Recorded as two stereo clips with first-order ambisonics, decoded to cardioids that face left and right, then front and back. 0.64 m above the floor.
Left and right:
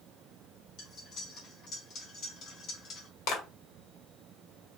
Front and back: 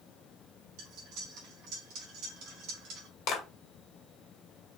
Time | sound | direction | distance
0.8 | cutlery clinking | 145° left | 2 m
3.3 | a clap | 50° left | 1.8 m